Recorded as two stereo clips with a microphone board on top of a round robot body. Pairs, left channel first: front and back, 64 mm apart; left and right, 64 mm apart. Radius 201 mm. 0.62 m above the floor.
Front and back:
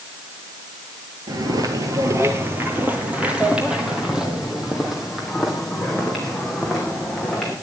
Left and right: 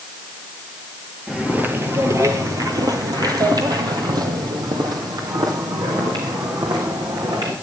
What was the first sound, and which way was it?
Footsteps, 165° right.